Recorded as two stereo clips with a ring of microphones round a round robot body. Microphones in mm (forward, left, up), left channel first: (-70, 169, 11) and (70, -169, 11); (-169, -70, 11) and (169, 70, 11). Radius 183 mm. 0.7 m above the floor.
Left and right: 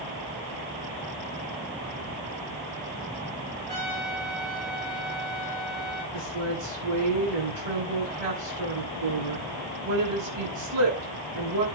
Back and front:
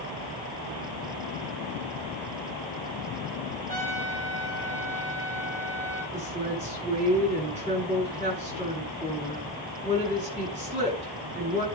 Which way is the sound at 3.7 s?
50° right.